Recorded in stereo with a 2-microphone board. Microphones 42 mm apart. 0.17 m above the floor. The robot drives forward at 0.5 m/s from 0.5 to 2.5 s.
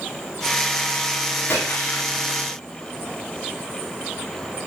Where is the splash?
55° left (ahead or behind), 9.5 m.